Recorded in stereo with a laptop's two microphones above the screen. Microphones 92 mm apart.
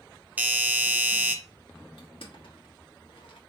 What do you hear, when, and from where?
0.4 s a doorbell: 20° right (ahead or behind), 0.7 m
2.0 s crushing: 80° left, 1.3 m